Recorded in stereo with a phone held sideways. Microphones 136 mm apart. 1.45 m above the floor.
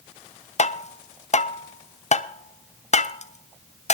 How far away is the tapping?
About 0.5 m.